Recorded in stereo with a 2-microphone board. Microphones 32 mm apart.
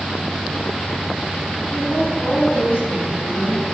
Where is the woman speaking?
70° left (ahead or behind), 7 m.